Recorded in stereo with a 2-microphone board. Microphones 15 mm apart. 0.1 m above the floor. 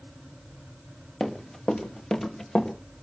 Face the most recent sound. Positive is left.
turn(degrees=75)  # may be behind; listen again after turning